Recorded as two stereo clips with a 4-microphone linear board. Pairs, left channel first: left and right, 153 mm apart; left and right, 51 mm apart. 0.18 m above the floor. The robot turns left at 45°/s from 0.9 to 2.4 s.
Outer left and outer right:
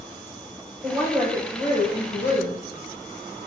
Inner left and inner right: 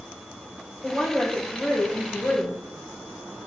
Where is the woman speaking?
170° right, 4 m; by 2.6 s 120° left, 4 m.